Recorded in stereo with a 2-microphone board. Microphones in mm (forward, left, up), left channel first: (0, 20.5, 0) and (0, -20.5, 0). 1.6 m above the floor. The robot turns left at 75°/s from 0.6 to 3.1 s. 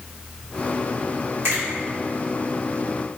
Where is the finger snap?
65° right (ahead or behind), 1.5 m; by 1.6 s 70° right (ahead or behind), 1.5 m.